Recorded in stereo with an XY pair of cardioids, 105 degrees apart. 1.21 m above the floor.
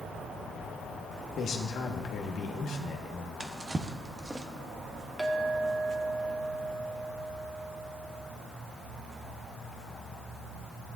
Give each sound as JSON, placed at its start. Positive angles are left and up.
{"t": 1.4, "sound": "a man speaking", "azimuth_deg": 70, "distance_m": 1.6}
{"t": 3.4, "sound": "a drawer", "azimuth_deg": -20, "distance_m": 1.0}
{"t": 5.2, "sound": "a clink", "azimuth_deg": -10, "distance_m": 1.5}